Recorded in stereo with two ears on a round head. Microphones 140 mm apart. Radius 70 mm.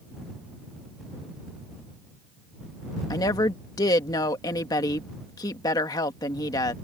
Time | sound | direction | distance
3.1 | a woman speaking | 25° left (ahead or behind) | ?